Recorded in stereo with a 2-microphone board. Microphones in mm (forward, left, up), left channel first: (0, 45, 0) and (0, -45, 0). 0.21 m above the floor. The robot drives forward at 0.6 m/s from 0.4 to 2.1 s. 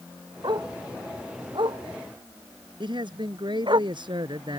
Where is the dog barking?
55° right (ahead or behind); by 3.8 s 60° right (ahead or behind).